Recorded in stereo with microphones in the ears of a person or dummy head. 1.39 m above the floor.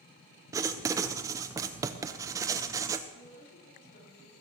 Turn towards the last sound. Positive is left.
turn(degrees=55)  # may be behind; listen again after turning